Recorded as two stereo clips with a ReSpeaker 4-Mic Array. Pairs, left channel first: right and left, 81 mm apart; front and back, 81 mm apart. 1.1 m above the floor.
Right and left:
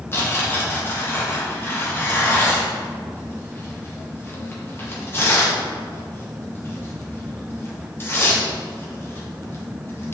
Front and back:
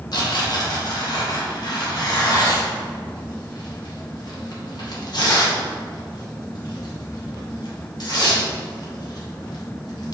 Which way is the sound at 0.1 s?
30° right.